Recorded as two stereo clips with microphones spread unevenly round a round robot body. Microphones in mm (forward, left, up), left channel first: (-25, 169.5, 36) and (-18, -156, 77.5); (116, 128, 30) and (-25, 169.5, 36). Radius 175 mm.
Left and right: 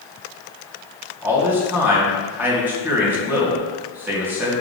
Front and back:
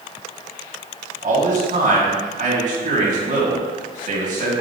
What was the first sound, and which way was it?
A man speaking, 175° right.